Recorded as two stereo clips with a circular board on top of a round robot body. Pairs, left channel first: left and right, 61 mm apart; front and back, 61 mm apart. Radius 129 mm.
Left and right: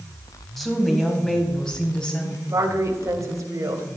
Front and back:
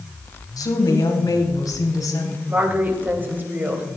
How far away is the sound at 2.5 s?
About 3 m.